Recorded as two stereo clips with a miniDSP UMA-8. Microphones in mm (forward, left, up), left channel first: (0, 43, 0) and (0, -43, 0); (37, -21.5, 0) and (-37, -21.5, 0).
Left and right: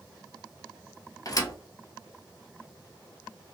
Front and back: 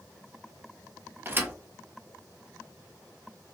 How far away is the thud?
About 0.7 m.